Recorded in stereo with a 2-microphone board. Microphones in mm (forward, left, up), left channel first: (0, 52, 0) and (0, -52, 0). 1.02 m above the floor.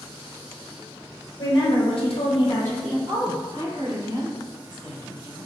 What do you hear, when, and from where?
1.4 s a woman speaking: 55° left (ahead or behind), 1.2 m; by 3.0 s centre (ahead or behind), 0.7 m
3.1 s a woman speaking: 45° right (ahead or behind), 1.0 m